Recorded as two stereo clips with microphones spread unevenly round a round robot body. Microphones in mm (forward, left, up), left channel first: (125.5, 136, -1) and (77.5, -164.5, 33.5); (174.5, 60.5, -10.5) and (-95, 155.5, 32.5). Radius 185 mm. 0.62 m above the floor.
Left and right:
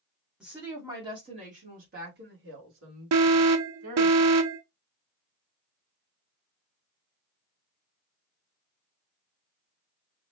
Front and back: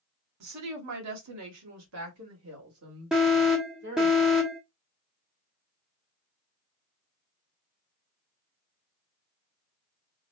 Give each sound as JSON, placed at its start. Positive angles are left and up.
{"t": 0.4, "sound": "a woman speaking", "azimuth_deg": 170, "distance_m": 1.8}
{"t": 3.1, "sound": "an alarm", "azimuth_deg": -105, "distance_m": 0.7}